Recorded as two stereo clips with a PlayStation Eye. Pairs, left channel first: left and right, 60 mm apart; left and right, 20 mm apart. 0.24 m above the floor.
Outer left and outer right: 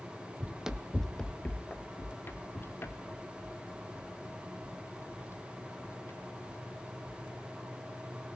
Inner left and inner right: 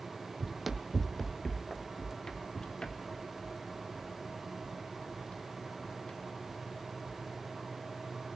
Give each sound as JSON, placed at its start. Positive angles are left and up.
{"t": 0.4, "sound": "running footsteps", "side_deg": -25, "distance_m": 0.7}